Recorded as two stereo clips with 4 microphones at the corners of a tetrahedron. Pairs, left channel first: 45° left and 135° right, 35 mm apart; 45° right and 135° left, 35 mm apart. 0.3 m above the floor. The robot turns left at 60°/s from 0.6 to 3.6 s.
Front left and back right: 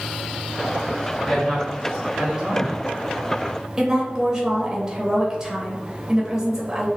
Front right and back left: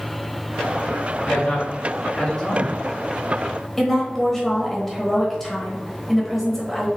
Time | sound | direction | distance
1.2 | a man speaking | 25° right | 1.6 m
3.8 | a woman speaking | 120° right | 1.0 m